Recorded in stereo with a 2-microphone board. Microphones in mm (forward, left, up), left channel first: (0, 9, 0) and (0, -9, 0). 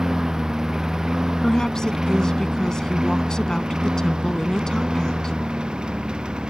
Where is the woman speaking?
35° left (ahead or behind).